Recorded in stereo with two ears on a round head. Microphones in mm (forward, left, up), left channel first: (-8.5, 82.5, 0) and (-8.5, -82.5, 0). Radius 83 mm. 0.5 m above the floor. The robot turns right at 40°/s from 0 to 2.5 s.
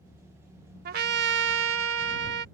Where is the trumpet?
125° right; by 2.5 s 60° right.